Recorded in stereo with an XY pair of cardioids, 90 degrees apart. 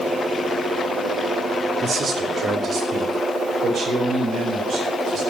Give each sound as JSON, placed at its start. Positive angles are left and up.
{"t": 1.8, "sound": "a man speaking", "azimuth_deg": -45, "distance_m": 2.5}